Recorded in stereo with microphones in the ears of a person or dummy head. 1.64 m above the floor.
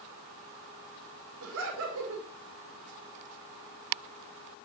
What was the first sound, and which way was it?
Laughter, 60° right (ahead or behind).